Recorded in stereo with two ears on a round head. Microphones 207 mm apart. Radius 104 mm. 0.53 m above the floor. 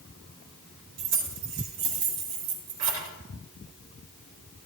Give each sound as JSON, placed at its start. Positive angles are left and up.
{"t": 1.0, "sound": "keys jangling", "side_deg": -80, "distance_m": 4.5}